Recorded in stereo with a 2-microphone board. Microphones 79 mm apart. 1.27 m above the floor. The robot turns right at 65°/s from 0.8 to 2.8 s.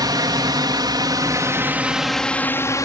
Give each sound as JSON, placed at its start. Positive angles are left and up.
{"t": 0.0, "sound": "a drone", "side_deg": -60}